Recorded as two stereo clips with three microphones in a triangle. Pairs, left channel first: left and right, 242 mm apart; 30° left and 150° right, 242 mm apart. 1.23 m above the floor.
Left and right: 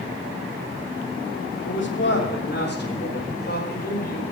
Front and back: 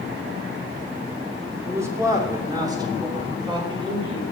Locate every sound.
1.6 s a man speaking: 130° left, 2.5 m; by 4.2 s 140° left, 5 m